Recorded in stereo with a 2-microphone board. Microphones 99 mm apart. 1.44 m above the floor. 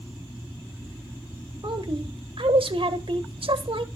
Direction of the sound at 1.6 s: 65° right (ahead or behind).